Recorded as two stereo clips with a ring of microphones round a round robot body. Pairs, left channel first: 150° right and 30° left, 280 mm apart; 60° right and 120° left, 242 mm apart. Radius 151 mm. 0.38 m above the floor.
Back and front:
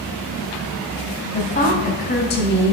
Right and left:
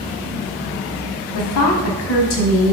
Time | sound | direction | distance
1.3 | a woman speaking | 85° right | 3 m